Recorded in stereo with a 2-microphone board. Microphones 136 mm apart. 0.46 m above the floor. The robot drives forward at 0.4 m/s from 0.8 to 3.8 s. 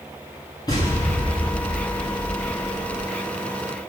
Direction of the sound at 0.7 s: 30° left (ahead or behind).